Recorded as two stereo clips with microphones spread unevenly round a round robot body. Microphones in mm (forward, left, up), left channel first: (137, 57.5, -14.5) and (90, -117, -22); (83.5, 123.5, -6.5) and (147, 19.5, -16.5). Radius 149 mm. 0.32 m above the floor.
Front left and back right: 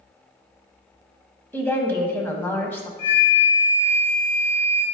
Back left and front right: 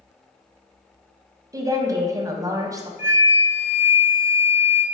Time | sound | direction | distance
1.5 | a woman speaking | 5° right | 1.6 m
3.0 | a flute | 85° left | 1.8 m